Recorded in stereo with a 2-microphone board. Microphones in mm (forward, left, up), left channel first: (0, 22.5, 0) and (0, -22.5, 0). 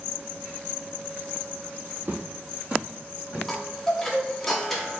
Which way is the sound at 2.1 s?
45° right (ahead or behind).